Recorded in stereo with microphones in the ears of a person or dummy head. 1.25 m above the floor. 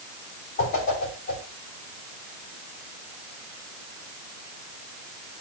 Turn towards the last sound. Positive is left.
turn(degrees=50)  # may be behind; listen again after turning